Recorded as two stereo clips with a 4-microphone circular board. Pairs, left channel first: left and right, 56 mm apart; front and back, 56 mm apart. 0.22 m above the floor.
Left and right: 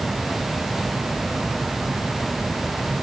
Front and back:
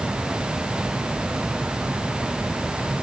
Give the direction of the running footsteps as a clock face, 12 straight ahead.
I don't hear running footsteps.